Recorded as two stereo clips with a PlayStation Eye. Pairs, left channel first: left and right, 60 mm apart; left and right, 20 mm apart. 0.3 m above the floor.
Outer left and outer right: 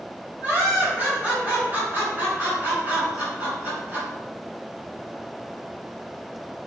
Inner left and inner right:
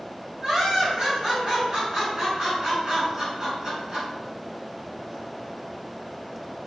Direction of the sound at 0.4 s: 35° right (ahead or behind).